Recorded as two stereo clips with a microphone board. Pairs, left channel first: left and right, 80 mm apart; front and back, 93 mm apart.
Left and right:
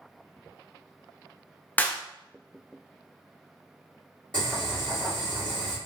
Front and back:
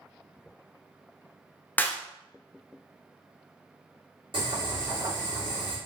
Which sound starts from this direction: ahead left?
A clap, at 1.8 s.